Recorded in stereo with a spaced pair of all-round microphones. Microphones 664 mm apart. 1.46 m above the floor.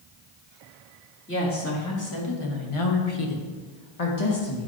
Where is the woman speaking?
15° left (ahead or behind), 3 m; by 4.7 s 45° left (ahead or behind), 2 m.